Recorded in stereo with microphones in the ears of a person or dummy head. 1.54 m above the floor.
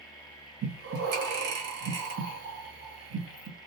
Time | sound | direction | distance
0.6 | breathing | 55° right (ahead or behind) | 1.1 m